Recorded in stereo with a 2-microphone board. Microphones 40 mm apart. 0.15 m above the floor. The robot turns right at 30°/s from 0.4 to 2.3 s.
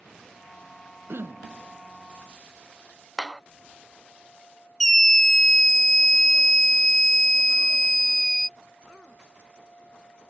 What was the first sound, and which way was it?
Throat clearing, 75° right (ahead or behind).